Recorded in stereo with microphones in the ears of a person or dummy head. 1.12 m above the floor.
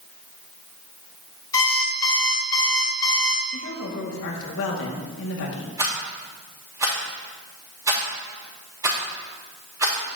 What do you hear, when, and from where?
1.5 s an alarm clock: 20° left (ahead or behind), 2 m
3.5 s a woman speaking: 75° left (ahead or behind), 2 m
5.8 s a rattle: 15° right (ahead or behind), 3.5 m